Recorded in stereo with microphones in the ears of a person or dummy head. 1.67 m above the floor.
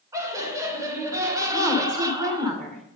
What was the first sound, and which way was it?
Laughter, 15° right (ahead or behind).